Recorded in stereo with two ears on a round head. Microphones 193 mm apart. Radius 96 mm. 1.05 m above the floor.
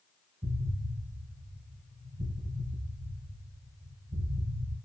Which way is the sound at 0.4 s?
20° right (ahead or behind).